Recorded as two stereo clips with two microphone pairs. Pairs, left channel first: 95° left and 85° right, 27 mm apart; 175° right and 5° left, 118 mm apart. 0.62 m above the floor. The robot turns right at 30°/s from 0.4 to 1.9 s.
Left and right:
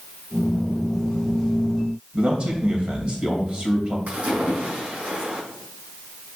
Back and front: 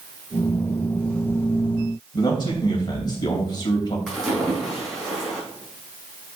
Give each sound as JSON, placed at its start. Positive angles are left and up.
{"t": 2.1, "sound": "a man speaking", "azimuth_deg": -125, "distance_m": 3.0}
{"t": 4.1, "sound": "a splash", "azimuth_deg": -85, "distance_m": 4.0}